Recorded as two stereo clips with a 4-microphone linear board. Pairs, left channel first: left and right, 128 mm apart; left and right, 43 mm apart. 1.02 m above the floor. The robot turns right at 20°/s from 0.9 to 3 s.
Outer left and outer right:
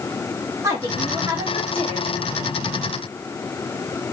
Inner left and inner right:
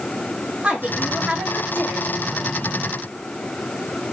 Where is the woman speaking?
155° right, 1.7 m; by 2.5 s 120° right, 1.7 m.